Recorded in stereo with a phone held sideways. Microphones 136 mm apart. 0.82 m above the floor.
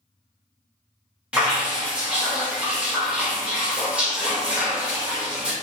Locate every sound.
1.3 s dripping: 10° right (ahead or behind), 1.0 m